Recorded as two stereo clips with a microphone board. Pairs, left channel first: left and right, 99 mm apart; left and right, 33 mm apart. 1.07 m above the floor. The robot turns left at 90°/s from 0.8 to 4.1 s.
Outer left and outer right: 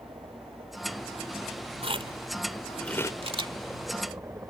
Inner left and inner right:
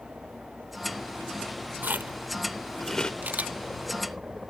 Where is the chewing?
80° right; by 3.1 s 35° left (ahead or behind).